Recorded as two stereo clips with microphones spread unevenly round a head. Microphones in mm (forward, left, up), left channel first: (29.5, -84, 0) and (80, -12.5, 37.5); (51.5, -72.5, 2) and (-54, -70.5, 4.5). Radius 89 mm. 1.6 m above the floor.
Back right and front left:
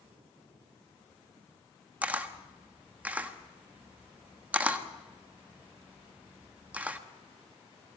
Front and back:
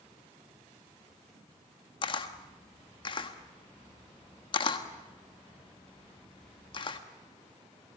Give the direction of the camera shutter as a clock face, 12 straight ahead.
11 o'clock.